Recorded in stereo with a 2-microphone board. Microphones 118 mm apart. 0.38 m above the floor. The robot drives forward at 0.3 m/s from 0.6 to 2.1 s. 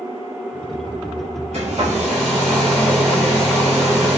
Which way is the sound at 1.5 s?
75° right (ahead or behind).